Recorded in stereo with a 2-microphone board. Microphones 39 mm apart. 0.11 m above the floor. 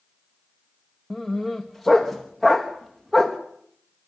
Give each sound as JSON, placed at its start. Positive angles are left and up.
{"t": 1.1, "sound": "a dog barking", "side_deg": 0, "distance_m": 2.0}